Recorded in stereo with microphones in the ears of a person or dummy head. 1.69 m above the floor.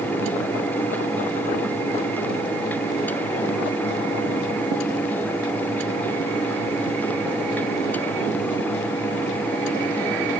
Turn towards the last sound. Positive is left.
No sound to turn to.